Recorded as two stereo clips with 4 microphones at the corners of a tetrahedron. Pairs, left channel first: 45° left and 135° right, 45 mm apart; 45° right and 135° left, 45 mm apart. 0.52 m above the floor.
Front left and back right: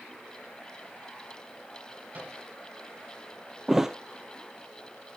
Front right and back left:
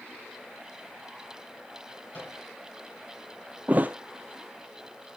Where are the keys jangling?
I don't hear keys jangling.